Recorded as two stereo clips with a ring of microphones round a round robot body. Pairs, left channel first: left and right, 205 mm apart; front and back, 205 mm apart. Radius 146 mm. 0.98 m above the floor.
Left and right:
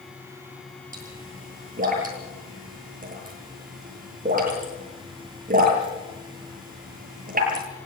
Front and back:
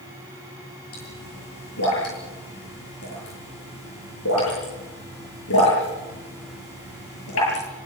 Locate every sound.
0.9 s a pop: 40° right, 10 m